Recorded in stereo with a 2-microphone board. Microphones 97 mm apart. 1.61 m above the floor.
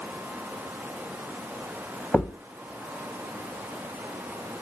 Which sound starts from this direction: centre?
A thud, at 2.1 s.